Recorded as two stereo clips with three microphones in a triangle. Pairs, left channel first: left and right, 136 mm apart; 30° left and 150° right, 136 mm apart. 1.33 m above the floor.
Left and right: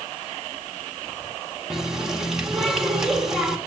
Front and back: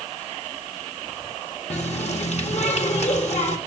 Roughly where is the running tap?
Ahead.